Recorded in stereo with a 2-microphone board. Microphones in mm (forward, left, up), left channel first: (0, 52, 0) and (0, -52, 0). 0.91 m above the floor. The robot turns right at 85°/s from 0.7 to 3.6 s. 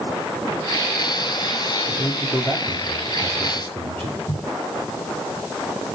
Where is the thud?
45° left (ahead or behind), 6 m.